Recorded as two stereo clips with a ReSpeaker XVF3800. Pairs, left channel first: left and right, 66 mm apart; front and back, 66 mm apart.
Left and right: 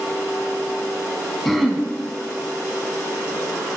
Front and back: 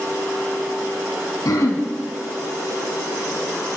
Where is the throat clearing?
5° left, 1.0 m.